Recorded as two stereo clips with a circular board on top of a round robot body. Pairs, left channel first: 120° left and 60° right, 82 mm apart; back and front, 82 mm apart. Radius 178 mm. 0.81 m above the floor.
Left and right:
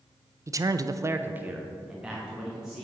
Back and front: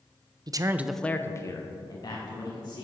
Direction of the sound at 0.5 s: 15° right.